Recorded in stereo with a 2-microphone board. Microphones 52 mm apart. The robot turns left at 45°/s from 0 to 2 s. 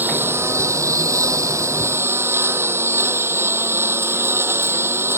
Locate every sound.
0.0 s a lawn mower: 35° right; by 5.2 s 125° right